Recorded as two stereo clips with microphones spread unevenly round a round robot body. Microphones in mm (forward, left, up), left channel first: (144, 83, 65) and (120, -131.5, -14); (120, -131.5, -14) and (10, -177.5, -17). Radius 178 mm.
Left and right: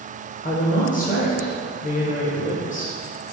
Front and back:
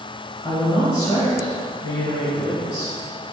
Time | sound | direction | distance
0.4 | a woman speaking | 25° left | 1.4 m